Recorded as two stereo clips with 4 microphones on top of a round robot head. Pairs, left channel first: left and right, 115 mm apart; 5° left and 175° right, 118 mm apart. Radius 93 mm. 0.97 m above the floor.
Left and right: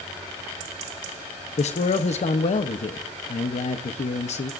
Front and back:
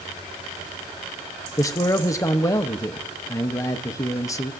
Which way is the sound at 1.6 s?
70° left.